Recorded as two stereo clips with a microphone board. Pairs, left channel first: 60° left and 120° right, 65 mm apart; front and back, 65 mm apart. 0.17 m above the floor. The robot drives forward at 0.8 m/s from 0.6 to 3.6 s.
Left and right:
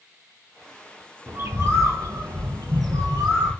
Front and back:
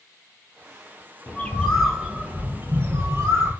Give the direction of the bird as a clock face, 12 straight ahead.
2 o'clock.